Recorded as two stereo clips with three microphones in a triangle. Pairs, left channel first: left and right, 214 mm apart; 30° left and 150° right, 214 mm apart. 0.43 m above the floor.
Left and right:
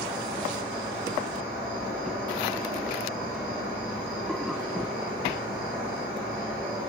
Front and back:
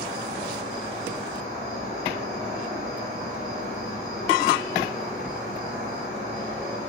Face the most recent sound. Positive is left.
turn(degrees=125)